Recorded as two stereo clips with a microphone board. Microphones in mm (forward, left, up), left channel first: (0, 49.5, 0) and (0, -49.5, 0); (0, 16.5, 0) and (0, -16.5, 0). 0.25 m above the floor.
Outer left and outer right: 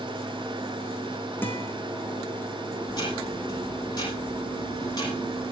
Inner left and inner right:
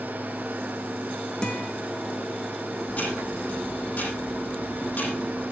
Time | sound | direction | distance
1.4 | a guitar | 20° left (ahead or behind) | 4 m
2.9 | ticking | 45° left (ahead or behind) | 8 m